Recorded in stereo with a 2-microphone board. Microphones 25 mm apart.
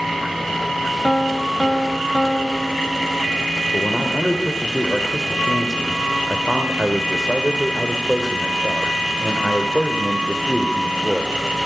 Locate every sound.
1.0 s a piano: 25° left (ahead or behind), 0.6 m
3.7 s a man speaking: 10° right (ahead or behind), 1.9 m